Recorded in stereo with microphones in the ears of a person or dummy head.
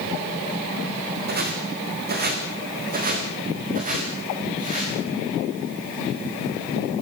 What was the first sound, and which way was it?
Footsteps, 55° right (ahead or behind).